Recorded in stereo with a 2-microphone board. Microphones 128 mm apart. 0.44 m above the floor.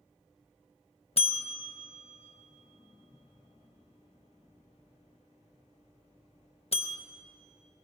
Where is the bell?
50° left (ahead or behind), 0.6 m.